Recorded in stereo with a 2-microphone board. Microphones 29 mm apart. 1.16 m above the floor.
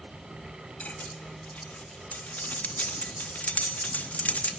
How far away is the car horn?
No car horn in this recording.